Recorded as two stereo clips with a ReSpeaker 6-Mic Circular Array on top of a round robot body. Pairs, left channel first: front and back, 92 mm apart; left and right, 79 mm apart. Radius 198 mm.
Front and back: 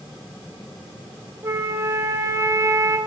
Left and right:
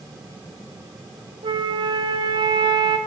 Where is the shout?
No shout in this recording.